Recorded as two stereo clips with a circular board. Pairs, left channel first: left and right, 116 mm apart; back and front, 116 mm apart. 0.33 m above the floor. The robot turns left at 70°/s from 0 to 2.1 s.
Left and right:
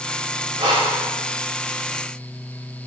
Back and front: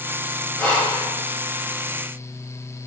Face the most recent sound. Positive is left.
turn(degrees=155)